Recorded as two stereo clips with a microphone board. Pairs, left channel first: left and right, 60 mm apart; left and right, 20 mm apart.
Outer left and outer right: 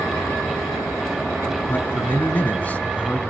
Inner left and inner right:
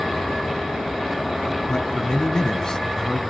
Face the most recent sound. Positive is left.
turn(degrees=25)  # may be behind; listen again after turning